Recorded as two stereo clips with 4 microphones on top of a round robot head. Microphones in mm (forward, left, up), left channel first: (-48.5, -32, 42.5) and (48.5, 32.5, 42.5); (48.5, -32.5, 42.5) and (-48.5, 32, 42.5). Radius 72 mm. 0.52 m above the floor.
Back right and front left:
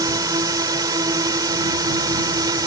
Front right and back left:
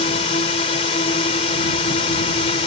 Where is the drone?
20° right; by 2.7 s 15° right.